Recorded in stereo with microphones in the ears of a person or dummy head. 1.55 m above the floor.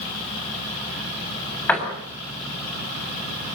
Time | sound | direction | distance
1.7 | a door slam | 5° left (ahead or behind) | 7.5 m